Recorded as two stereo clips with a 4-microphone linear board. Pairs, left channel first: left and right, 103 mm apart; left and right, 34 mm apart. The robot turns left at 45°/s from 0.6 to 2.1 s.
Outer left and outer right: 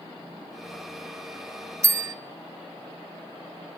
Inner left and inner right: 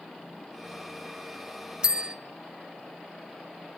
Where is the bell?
25° right (ahead or behind), 0.7 m; by 2.1 s 30° right (ahead or behind), 0.7 m.